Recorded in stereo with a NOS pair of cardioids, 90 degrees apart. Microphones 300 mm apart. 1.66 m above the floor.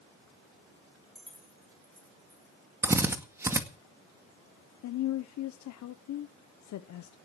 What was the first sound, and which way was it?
Keys jangling, straight ahead.